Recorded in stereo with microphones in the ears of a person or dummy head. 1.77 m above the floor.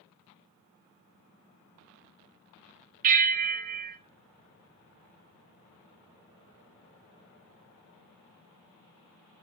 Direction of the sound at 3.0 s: 40° right (ahead or behind).